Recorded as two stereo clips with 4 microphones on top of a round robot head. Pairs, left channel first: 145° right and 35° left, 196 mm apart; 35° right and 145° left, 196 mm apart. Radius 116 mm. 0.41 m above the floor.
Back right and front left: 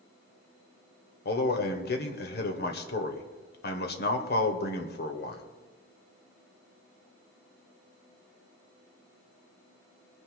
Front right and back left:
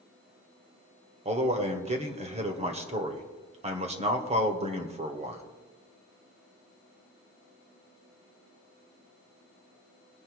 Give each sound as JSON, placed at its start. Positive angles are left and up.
{"t": 1.2, "sound": "a man speaking", "azimuth_deg": -165, "distance_m": 1.9}